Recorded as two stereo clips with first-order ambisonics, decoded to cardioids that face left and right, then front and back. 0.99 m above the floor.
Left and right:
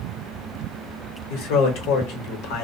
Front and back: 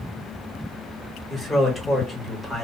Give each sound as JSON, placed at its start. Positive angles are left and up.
{"t": 1.3, "sound": "a man speaking", "azimuth_deg": 90, "distance_m": 1.0}